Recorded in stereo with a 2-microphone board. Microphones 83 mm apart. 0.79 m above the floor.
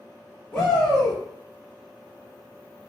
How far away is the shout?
About 0.9 m.